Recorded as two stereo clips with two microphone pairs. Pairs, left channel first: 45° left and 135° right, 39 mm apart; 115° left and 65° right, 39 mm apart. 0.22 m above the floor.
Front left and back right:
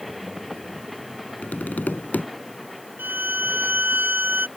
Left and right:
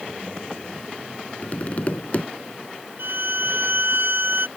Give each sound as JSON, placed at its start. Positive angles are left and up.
{"t": 1.4, "sound": "tapping", "azimuth_deg": 70}
{"t": 3.0, "sound": "a violin", "azimuth_deg": -100}